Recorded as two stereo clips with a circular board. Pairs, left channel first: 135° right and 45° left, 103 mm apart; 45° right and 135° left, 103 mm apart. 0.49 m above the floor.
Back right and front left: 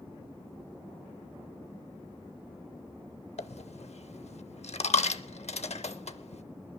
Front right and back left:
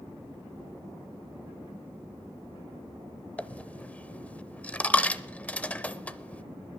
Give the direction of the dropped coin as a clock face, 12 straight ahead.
4 o'clock.